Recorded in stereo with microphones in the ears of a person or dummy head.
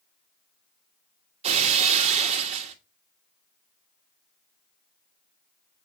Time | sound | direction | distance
1.4 | breaking glass | 35° right (ahead or behind) | 1.5 m